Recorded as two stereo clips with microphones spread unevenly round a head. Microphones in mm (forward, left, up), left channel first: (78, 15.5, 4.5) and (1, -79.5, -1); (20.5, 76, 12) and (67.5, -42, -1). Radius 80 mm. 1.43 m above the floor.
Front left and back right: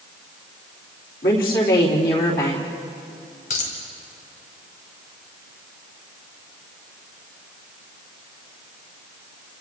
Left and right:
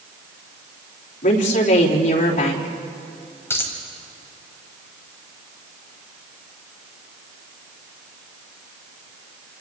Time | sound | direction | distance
1.2 | a woman speaking | 85° left | 3.5 m
3.5 | a dropped coin | 40° left | 3.5 m